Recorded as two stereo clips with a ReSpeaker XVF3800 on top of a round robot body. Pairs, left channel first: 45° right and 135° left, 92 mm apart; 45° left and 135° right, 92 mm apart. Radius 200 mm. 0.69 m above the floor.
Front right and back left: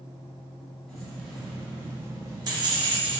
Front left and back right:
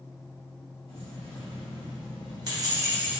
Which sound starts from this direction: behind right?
Keys jangling, at 0.9 s.